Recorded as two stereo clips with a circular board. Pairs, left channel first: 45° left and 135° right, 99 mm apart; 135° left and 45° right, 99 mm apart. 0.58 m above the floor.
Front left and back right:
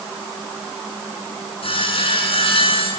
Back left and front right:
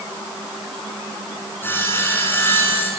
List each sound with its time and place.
1.6 s sawing: 65° left, 8 m